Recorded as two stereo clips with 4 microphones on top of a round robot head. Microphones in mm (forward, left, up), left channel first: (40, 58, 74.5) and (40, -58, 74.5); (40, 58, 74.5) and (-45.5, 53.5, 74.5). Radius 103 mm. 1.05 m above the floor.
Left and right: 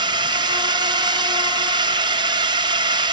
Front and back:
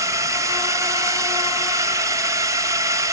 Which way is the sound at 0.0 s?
130° right.